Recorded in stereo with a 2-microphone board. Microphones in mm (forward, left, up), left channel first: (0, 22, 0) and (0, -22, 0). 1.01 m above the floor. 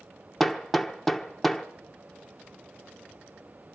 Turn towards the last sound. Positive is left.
turn(degrees=0)  # may be behind; listen again after turning